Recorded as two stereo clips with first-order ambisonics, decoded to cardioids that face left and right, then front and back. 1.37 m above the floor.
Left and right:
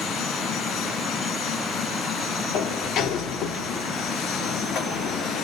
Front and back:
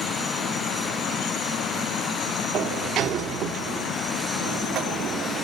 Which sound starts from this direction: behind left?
A sliding door, at 2.5 s.